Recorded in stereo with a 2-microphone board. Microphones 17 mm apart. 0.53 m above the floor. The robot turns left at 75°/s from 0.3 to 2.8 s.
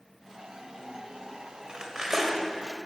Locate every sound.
1.7 s cutlery clinking: 125° right, 1.4 m; by 2.5 s straight behind, 1.4 m